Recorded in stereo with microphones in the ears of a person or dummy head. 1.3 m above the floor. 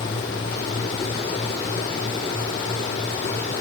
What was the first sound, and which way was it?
Only background noise.